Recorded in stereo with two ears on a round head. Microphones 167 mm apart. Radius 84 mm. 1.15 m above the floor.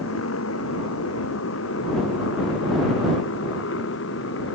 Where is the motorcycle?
85° left; by 4.5 s 75° left (ahead or behind).